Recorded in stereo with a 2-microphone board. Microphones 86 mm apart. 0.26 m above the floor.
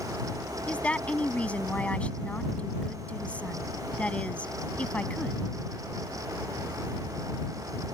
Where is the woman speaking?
15° left (ahead or behind).